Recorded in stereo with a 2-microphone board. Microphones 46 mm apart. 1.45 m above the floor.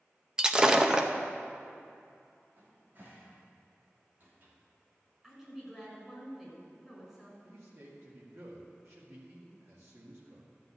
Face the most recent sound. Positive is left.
turn(degrees=-65)  # may be behind; listen again after turning